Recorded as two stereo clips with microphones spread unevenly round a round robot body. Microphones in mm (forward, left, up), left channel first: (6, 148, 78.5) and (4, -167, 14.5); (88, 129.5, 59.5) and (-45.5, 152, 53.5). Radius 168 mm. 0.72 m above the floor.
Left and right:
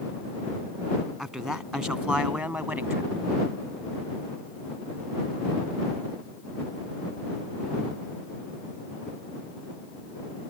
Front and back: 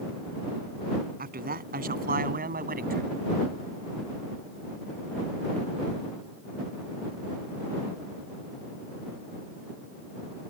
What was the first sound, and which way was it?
A man speaking, straight behind.